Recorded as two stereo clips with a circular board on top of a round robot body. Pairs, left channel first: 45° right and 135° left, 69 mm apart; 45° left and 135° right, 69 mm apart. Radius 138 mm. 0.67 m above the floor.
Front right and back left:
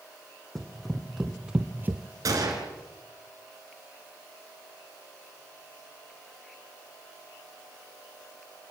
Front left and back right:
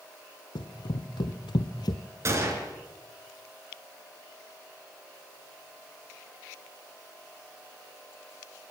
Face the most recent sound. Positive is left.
turn(degrees=175)